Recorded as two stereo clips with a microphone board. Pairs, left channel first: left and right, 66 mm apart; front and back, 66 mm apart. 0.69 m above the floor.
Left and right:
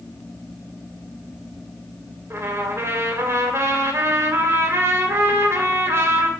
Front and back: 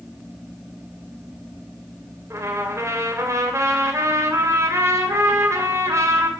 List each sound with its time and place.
2.3 s a trumpet: 135° right, 2.5 m